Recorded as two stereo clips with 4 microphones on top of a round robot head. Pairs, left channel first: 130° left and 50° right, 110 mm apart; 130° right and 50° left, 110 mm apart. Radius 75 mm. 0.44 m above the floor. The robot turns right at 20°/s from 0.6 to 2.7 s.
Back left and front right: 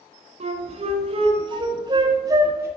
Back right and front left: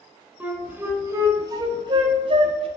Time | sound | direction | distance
0.4 | a flute | 25° right | 1.0 m